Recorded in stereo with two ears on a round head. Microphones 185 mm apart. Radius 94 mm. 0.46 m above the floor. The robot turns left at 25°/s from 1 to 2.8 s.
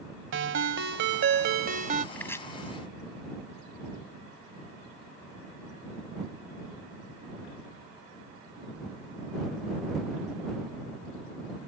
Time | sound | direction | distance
0.3 | a ringtone | 65° right (ahead or behind) | ?
2.1 | chopping | 10° left (ahead or behind) | ?